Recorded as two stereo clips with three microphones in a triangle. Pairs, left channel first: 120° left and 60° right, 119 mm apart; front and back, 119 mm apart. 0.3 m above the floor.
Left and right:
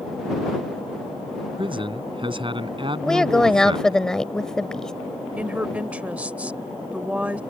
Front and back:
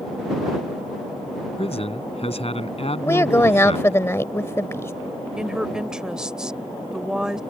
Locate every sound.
1.6 s a man speaking: 20° right
3.0 s a woman speaking: 40° left
5.4 s a woman speaking: 110° right